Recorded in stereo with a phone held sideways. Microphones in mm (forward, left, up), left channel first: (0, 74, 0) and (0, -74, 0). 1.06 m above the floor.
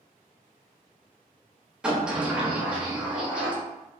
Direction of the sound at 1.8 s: 5° right (ahead or behind).